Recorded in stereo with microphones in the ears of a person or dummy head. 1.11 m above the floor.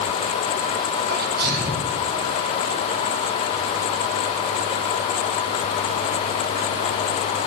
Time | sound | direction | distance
1.1 | a sneeze | 65° right (ahead or behind) | 5.5 m